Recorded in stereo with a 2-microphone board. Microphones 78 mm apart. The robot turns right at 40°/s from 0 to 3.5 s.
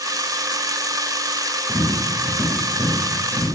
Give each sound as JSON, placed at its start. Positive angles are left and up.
{"t": 1.7, "sound": "tapping", "side_deg": 40, "distance_m": 1.7}